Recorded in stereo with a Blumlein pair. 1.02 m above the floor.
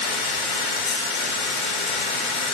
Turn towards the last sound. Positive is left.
turn(degrees=45)